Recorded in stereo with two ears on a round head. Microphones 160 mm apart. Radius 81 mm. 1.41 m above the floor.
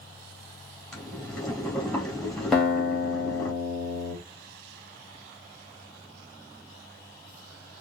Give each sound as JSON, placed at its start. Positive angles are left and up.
{"t": 0.9, "sound": "boiling", "side_deg": 5, "distance_m": 1.9}
{"t": 2.5, "sound": "a guitar", "side_deg": 0, "distance_m": 1.3}